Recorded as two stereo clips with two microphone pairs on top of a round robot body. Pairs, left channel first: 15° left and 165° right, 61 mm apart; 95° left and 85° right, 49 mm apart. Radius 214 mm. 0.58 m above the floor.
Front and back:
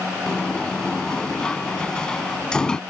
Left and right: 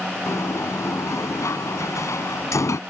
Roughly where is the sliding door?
Left.